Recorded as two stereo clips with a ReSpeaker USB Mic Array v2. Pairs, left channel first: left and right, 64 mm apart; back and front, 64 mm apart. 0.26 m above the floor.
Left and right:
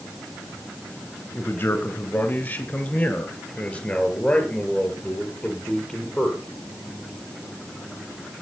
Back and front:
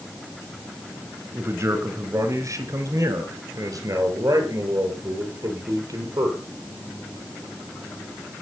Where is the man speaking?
40° left, 2.5 m; by 6.4 s 5° left, 5.5 m.